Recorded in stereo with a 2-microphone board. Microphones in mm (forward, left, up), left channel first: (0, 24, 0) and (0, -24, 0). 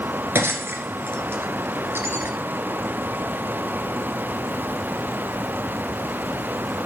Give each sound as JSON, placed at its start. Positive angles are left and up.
{"t": 0.3, "sound": "breaking glass", "side_deg": -60, "distance_m": 2.0}